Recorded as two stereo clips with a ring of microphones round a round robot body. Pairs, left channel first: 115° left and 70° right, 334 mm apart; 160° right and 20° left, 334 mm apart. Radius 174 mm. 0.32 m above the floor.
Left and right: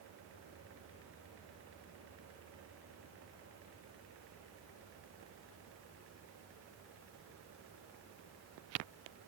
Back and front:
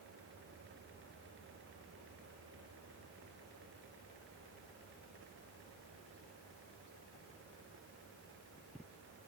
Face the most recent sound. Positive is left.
No sound to turn to.